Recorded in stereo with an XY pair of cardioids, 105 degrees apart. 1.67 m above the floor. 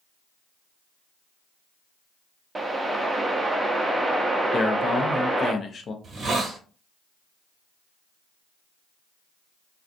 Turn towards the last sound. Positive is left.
turn(degrees=-40)